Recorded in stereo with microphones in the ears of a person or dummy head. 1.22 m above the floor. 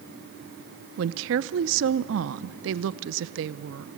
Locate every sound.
1.0 s a woman speaking: 65° right (ahead or behind), 0.6 m